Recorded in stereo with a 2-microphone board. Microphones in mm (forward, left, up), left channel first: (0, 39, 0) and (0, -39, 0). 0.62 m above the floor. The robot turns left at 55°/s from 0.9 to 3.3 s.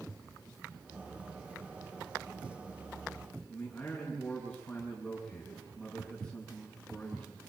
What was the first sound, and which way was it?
A man speaking, 5° left (ahead or behind).